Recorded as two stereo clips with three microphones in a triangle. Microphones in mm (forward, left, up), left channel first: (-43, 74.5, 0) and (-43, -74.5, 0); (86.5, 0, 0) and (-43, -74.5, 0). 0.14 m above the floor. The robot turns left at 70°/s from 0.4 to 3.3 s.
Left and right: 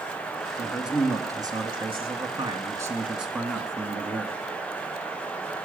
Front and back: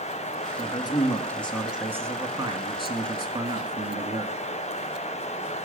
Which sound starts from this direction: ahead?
A man speaking, at 0.6 s.